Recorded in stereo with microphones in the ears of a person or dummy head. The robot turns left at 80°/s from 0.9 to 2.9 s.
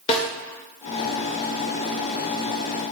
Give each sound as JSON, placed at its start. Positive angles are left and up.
{"t": 0.1, "sound": "a snare drum", "side_deg": 35, "distance_m": 1.1}